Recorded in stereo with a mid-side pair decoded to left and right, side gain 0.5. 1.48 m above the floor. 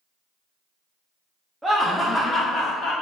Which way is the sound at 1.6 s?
10° right.